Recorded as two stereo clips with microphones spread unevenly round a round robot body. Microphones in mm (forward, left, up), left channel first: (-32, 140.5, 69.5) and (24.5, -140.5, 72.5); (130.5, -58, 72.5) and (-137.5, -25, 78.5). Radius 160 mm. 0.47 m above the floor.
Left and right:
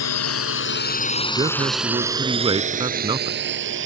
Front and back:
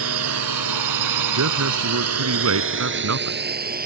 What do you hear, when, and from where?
0.0 s a drone: 135° left; by 3.9 s 130° right
1.4 s a man speaking: 155° right